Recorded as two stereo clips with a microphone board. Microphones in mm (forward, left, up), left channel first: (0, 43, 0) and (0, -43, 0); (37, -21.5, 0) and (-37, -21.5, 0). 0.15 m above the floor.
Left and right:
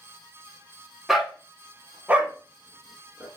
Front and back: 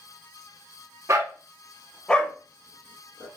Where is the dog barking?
Straight behind, 0.6 m; by 3.3 s 25° right, 0.9 m.